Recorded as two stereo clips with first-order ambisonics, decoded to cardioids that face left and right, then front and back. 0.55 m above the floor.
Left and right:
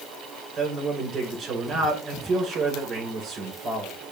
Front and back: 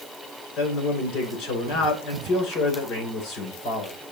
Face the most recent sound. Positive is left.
turn(degrees=-30)